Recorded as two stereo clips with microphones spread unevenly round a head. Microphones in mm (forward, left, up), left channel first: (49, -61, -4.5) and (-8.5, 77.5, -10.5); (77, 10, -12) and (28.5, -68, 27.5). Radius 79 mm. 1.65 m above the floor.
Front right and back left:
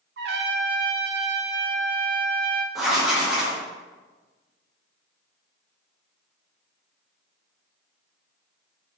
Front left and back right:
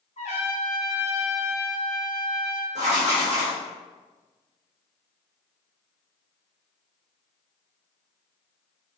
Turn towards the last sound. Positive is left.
turn(degrees=-160)